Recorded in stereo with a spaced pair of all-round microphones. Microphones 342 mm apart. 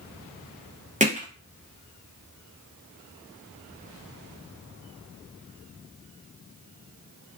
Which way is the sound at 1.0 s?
20° right (ahead or behind).